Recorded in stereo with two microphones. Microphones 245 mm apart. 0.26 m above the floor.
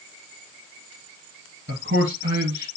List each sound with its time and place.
1.7 s a man speaking: 50° right (ahead or behind), 2.5 m